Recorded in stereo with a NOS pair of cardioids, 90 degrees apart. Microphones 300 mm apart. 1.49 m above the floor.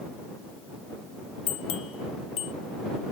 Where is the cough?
No cough in this recording.